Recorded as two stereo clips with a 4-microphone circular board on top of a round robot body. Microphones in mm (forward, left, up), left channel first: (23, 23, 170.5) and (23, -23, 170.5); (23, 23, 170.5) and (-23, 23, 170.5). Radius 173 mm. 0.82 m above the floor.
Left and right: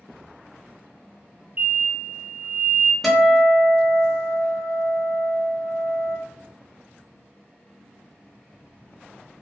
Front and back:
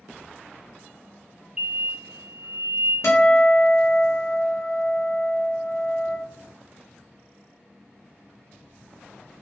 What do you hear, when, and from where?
1.6 s an explosion: 125° right, 1.2 m
3.0 s a guitar: 5° left, 1.0 m